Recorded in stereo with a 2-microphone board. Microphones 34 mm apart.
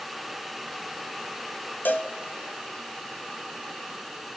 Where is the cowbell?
70° left (ahead or behind), 1.3 m.